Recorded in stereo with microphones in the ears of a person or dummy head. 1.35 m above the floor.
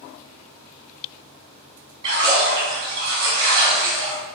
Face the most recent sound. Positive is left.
turn(degrees=-25)  # may be behind; listen again after turning